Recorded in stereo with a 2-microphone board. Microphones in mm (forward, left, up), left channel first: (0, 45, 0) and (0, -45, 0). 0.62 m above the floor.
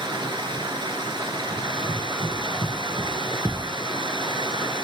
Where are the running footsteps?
75° right (ahead or behind), 6 m; by 3.4 s 85° right, 6 m.